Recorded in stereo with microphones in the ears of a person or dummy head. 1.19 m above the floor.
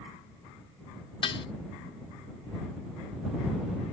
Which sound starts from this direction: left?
Dishes clattering, at 1.2 s.